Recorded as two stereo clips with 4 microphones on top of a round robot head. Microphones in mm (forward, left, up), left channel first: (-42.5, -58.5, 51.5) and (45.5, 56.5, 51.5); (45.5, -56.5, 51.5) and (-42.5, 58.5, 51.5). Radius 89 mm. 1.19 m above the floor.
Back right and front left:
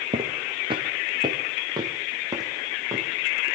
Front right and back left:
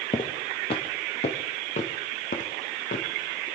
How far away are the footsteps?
About 1.7 m.